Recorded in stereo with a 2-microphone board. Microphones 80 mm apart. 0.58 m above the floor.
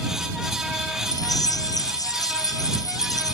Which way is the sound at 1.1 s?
50° left (ahead or behind).